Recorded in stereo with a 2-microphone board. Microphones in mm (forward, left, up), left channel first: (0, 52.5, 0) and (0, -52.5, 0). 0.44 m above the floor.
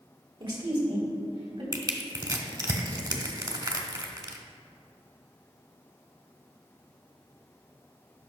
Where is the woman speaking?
50° right (ahead or behind), 1.8 m; by 1.6 s 65° right (ahead or behind), 3 m.